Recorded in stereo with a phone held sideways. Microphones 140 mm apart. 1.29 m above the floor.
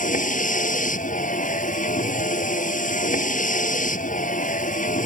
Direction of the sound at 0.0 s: 75° left (ahead or behind).